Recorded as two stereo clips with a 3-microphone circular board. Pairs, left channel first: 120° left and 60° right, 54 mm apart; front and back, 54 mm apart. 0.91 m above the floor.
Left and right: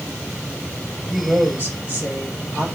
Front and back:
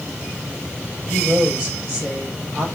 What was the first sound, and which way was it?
A woman speaking, 125° right.